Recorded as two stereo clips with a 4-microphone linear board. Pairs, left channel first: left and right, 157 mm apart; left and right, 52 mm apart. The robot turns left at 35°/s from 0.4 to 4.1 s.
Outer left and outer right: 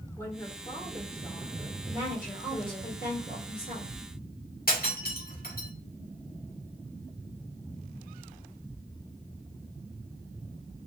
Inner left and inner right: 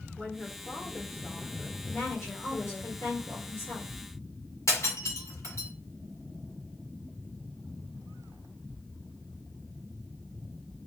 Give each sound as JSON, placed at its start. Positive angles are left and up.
{"t": 0.2, "sound": "a woman speaking", "azimuth_deg": 165, "distance_m": 1.8}
{"t": 1.9, "sound": "a woman speaking", "azimuth_deg": 135, "distance_m": 2.5}
{"t": 4.7, "sound": "breaking glass", "side_deg": 85, "distance_m": 1.7}